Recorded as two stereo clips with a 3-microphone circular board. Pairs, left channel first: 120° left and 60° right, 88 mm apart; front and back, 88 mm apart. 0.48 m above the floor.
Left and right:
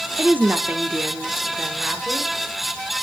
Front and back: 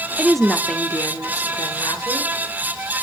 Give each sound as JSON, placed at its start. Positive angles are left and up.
{"t": 0.2, "sound": "a woman speaking", "azimuth_deg": -110, "distance_m": 1.0}